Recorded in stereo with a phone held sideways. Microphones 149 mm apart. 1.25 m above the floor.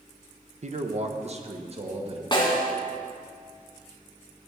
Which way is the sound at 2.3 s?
30° left (ahead or behind).